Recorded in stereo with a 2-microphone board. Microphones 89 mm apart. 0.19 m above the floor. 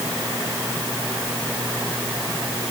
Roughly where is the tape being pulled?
No tape being pulled in this recording.